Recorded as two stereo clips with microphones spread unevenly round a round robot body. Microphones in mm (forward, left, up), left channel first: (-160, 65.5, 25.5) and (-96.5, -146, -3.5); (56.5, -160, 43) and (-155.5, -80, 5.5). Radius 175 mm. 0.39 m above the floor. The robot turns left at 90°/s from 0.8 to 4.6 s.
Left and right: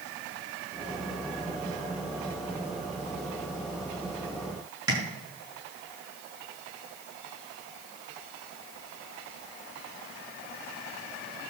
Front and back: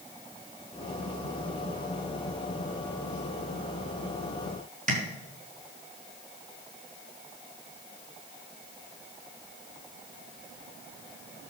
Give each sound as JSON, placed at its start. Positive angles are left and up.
{"t": 4.9, "sound": "tapping", "azimuth_deg": -145, "distance_m": 5.0}